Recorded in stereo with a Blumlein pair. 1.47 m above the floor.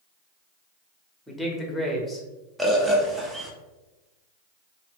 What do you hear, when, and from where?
1.3 s a man speaking: 5° left, 1.1 m
2.6 s a bird: 10° right, 0.8 m